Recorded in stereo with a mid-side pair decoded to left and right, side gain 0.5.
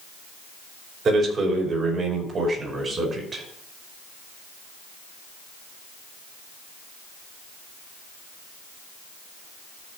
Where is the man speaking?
50° right, 5.5 m; by 3.4 s 35° right, 5.5 m.